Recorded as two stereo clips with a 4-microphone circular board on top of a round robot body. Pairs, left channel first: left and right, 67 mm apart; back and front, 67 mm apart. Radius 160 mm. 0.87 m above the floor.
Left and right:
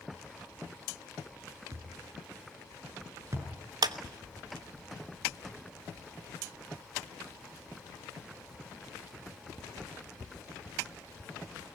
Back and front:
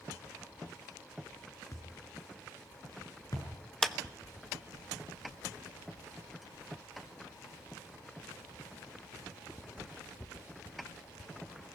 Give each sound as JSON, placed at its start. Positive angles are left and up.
{"t": 1.7, "sound": "a thud", "azimuth_deg": -140, "distance_m": 5.0}
{"t": 3.8, "sound": "a clap", "azimuth_deg": -95, "distance_m": 1.2}